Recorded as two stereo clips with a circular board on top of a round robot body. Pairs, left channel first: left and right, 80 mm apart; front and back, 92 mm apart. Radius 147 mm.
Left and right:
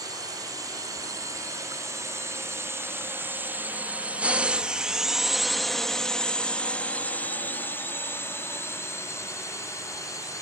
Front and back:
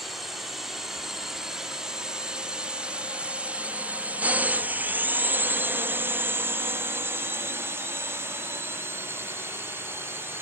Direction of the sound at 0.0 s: 90° right.